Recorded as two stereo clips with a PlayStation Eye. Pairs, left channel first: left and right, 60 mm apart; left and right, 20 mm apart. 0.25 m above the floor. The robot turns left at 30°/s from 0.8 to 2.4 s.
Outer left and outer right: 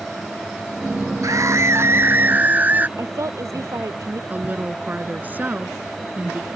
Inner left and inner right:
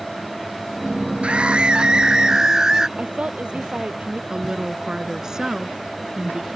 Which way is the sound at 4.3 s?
30° right (ahead or behind).